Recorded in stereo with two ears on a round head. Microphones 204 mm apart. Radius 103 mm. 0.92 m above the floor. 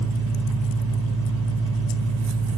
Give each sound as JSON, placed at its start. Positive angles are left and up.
{"t": 0.0, "sound": "an engine running", "side_deg": -65, "distance_m": 3.5}